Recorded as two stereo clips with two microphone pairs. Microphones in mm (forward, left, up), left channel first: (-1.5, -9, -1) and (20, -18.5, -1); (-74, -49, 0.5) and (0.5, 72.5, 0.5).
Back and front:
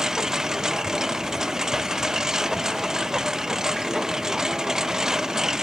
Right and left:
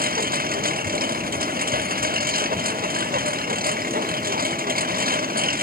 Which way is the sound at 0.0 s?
40° left.